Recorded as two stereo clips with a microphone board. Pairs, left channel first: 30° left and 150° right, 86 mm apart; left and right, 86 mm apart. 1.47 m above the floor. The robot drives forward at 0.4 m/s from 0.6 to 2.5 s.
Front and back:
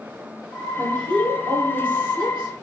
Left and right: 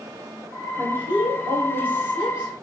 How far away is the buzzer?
I don't hear a buzzer.